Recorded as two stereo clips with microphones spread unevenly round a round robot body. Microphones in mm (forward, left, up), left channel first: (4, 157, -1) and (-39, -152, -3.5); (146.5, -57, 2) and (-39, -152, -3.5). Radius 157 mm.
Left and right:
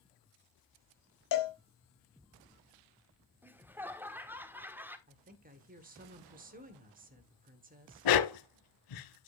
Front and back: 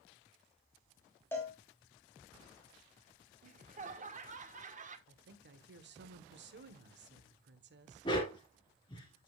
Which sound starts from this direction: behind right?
A woman speaking, at 5.1 s.